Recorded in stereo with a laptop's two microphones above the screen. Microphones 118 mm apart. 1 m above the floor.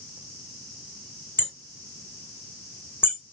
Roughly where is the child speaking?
No child speaking in this recording.